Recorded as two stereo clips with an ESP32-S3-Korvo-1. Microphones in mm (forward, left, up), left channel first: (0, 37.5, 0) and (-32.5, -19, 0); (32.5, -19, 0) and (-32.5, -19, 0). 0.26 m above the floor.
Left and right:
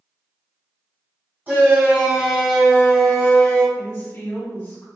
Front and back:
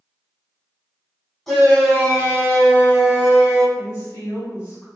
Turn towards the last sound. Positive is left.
turn(degrees=25)